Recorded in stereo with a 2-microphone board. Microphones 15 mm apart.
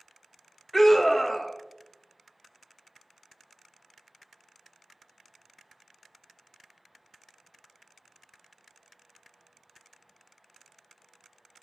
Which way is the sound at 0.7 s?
10° left (ahead or behind).